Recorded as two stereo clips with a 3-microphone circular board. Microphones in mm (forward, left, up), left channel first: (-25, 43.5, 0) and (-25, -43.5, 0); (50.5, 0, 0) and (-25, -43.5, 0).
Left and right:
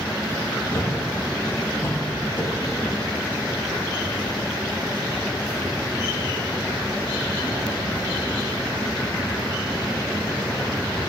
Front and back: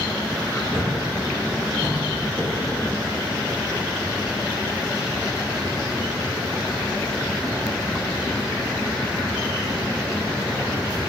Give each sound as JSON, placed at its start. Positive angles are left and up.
{"t": 0.7, "sound": "a thud", "azimuth_deg": 150, "distance_m": 6.5}